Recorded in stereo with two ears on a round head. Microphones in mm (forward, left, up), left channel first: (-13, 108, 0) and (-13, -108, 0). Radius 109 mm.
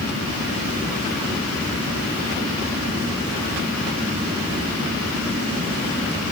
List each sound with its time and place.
Only background noise.